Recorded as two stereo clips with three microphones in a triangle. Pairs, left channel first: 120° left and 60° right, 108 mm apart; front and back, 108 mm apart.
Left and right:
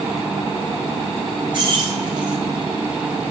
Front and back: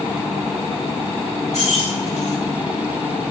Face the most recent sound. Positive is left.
turn(degrees=-10)